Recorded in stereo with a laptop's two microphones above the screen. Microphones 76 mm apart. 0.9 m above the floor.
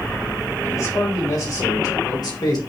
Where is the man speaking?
50° left (ahead or behind), 3.5 m; by 2.6 s 60° left (ahead or behind), 2.5 m.